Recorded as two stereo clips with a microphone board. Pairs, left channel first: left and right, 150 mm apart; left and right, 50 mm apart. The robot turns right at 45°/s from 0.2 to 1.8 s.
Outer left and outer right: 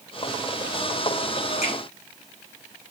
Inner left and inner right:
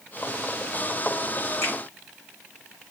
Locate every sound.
1.6 s a finger snap: 55° left (ahead or behind), 2 m; by 1.7 s 60° left (ahead or behind), 2 m